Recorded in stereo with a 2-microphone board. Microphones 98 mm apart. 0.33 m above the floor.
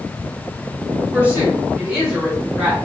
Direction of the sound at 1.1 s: 20° right (ahead or behind).